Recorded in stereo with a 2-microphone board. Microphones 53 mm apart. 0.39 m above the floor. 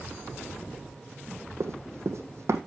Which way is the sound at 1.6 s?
70° right (ahead or behind).